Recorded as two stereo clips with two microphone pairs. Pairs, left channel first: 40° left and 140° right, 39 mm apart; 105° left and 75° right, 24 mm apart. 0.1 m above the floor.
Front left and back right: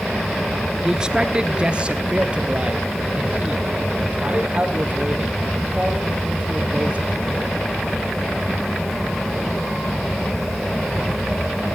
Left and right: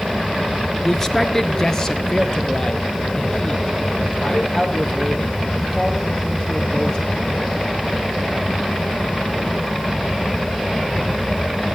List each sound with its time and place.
0.8 s a man speaking: 165° left, 1.3 m; by 7.5 s 160° left, 5.5 m